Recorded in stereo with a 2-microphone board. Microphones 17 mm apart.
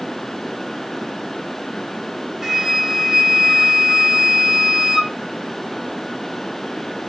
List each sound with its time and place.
2.4 s a flute: 25° right (ahead or behind), 2 m